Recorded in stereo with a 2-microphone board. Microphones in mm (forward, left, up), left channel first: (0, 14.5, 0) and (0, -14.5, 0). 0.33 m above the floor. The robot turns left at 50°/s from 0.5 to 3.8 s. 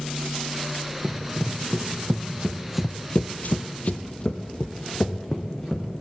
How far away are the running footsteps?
About 1.6 m.